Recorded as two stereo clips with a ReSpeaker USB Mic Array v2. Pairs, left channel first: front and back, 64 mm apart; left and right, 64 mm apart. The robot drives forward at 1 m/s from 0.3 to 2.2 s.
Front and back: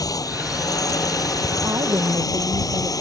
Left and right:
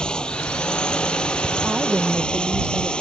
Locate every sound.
0.0 s a drone: 15° left
1.6 s a woman speaking: 160° right